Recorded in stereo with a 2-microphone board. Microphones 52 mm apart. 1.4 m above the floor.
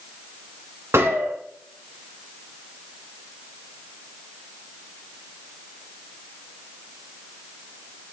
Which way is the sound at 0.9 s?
55° right (ahead or behind).